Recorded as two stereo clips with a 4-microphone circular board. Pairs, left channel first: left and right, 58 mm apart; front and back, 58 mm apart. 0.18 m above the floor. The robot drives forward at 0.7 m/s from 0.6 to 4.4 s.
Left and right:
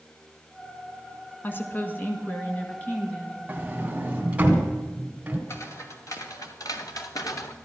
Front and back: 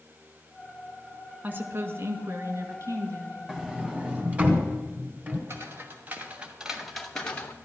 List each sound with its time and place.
1.4 s a woman speaking: 130° left, 1.5 m; by 3.8 s 160° left, 2.5 m
3.5 s a sliding door: 100° right, 1.6 m; by 5.4 s 135° right, 1.8 m
5.5 s footsteps: 130° left, 2.5 m; by 7.5 s 65° left, 1.5 m